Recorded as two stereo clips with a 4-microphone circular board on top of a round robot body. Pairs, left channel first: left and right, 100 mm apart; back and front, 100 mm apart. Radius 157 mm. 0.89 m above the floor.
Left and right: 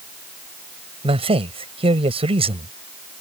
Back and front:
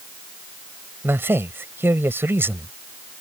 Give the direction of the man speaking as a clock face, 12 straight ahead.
2 o'clock.